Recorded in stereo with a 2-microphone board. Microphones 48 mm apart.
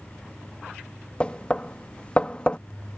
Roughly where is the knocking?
Left.